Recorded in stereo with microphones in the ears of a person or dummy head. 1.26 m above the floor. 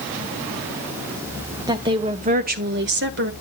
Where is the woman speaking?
20° right (ahead or behind), 1.0 m; by 3.3 s 55° right (ahead or behind), 0.8 m.